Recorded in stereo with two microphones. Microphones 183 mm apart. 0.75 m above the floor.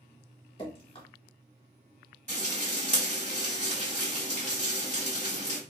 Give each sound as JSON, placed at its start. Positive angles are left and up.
{"t": 0.6, "sound": "dripping", "side_deg": 30, "distance_m": 1.1}
{"t": 2.3, "sound": "frying", "side_deg": -35, "distance_m": 1.9}